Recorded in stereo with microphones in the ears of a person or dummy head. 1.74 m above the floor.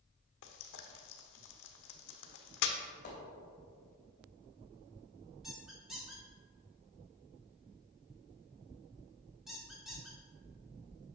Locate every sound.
0.4 s frying: 70° left (ahead or behind), 1.0 m
3.0 s a splash: 55° left (ahead or behind), 3 m
5.4 s a squeak: centre (ahead or behind), 2 m